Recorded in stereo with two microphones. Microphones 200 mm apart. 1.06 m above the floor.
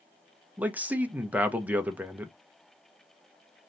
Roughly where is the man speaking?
Centre.